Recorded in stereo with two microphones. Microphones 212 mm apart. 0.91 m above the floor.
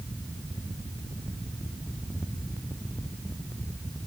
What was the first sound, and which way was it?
Only background noise.